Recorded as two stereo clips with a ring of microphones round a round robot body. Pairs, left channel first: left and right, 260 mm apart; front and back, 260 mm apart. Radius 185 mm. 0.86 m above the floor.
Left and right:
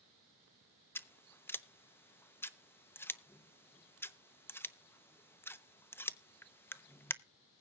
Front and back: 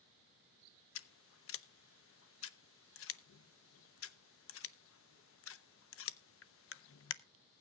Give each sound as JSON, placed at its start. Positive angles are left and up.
{"t": 0.9, "sound": "scissors", "azimuth_deg": 10, "distance_m": 0.9}